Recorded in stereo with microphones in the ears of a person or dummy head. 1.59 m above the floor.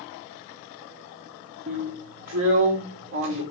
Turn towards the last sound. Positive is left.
turn(degrees=-75)  # may be behind; listen again after turning